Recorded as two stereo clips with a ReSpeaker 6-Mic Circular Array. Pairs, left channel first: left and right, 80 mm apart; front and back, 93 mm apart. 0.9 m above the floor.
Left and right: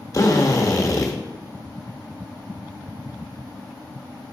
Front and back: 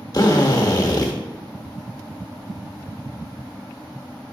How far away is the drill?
About 1.0 m.